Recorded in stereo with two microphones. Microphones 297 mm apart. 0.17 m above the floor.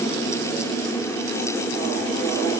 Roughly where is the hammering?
I don't hear hammering.